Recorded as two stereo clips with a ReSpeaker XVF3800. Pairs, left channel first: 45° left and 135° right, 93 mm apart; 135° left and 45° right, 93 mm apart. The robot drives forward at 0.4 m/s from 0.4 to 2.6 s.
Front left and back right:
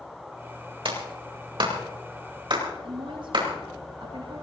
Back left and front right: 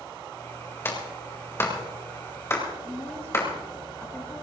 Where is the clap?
160° right, 4 m; by 3.5 s 165° right, 4.5 m.